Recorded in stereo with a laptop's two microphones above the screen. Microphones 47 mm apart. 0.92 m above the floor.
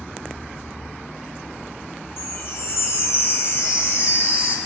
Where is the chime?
55° left (ahead or behind), 0.8 m.